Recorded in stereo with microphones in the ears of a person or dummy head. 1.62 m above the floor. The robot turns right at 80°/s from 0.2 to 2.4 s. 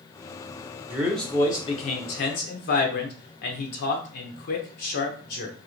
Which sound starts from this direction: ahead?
A man speaking, at 0.9 s.